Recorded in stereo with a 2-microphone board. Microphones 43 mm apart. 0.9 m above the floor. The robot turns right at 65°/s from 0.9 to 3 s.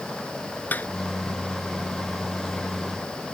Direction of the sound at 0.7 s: 45° left (ahead or behind).